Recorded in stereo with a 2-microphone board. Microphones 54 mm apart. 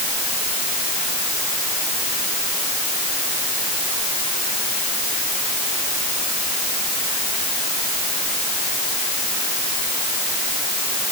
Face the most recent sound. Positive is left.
No sound to turn to.